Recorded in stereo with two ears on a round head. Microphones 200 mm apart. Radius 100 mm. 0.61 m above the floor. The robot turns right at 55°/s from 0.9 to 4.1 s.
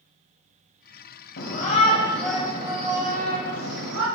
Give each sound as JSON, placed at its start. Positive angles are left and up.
{"t": 1.4, "sound": "a shout", "azimuth_deg": 130, "distance_m": 2.5}